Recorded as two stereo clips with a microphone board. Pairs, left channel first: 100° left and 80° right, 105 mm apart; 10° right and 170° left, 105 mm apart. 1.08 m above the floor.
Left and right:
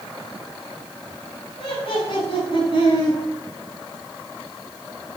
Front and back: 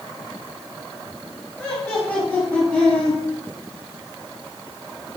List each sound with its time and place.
1.6 s laughter: 75° left, 6 m